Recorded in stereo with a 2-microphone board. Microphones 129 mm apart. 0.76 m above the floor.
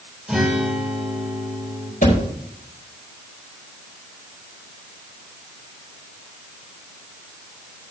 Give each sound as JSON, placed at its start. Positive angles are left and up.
{"t": 0.3, "sound": "a guitar", "side_deg": -5, "distance_m": 4.0}
{"t": 2.0, "sound": "a thud", "side_deg": 80, "distance_m": 4.0}